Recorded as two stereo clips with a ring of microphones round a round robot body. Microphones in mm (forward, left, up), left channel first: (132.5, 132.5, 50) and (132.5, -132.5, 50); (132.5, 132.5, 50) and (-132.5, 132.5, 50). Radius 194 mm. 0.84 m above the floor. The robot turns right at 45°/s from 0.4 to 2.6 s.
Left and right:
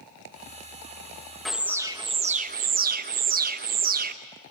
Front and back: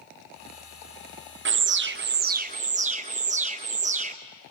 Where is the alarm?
Straight behind, 0.8 m; by 4.2 s 130° right, 0.8 m.